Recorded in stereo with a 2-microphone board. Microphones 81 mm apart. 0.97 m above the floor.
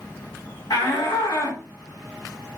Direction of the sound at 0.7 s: 65° left (ahead or behind).